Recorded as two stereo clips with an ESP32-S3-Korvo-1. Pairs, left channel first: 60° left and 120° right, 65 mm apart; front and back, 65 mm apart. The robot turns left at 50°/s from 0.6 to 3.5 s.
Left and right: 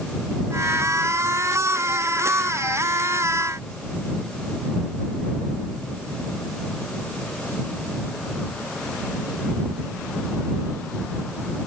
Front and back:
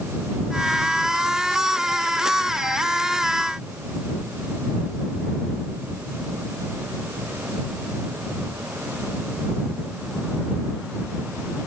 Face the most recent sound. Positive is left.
No sound to turn to.